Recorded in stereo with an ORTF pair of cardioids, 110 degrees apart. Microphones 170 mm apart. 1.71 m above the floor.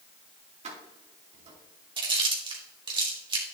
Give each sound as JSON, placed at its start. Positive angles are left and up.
{"t": 0.6, "sound": "keys jangling", "azimuth_deg": -40, "distance_m": 3.0}
{"t": 2.0, "sound": "chewing", "azimuth_deg": -30, "distance_m": 3.0}